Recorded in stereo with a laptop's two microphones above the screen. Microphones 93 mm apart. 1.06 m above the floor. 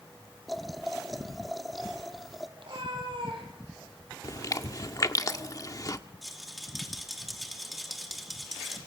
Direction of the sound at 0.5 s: Centre (ahead or behind).